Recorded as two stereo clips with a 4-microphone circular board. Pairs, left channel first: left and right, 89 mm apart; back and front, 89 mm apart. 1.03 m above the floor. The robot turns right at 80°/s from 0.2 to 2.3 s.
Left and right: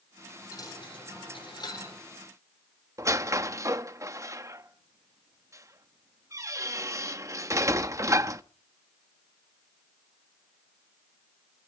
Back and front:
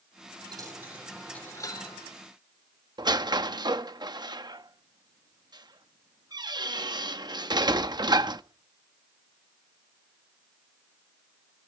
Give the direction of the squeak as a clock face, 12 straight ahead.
1 o'clock.